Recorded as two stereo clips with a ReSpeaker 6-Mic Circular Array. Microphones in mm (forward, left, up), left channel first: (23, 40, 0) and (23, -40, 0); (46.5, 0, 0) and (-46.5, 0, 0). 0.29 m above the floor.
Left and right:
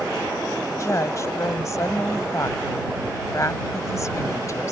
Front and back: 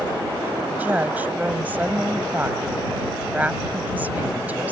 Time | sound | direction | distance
0.7 | a woman speaking | 115° left | ?